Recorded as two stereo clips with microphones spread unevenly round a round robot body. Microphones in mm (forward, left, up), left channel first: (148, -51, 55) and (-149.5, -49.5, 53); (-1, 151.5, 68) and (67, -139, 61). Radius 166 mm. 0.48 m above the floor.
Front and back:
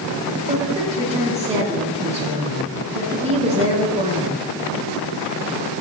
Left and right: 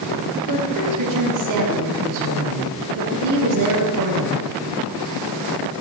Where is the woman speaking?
105° right, 5 m.